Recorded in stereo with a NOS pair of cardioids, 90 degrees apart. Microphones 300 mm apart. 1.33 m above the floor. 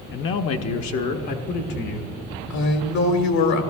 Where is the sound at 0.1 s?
40° left, 0.6 m; by 2.2 s 80° left, 1.7 m.